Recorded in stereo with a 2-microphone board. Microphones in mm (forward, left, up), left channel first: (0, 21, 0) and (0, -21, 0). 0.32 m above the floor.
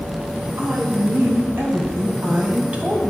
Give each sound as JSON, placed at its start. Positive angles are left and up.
{"t": 0.6, "sound": "a woman speaking", "side_deg": -65, "distance_m": 2.0}